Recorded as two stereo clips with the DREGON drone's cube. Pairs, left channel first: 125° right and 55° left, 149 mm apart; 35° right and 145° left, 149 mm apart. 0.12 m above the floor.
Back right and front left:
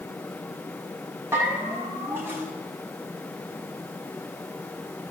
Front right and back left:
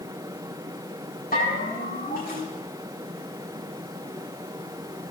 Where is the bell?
20° right, 9.5 m.